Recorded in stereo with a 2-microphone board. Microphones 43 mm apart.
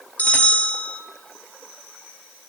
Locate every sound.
0.2 s a bell: 35° left (ahead or behind), 0.7 m